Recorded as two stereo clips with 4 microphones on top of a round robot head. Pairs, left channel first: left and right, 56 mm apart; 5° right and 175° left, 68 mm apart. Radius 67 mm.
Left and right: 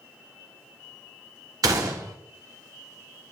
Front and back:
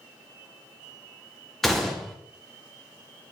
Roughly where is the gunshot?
Right.